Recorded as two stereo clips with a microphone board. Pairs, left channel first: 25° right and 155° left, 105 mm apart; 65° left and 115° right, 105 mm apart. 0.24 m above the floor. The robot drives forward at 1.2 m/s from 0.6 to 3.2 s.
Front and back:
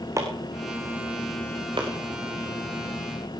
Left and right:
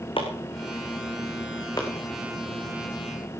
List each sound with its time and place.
0.2 s chopping: 95° left, 3 m; by 1.9 s 120° left, 3.5 m